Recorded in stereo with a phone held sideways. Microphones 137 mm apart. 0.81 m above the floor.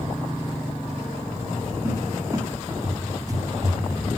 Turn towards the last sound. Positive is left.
turn(degrees=-25)  # may be behind; listen again after turning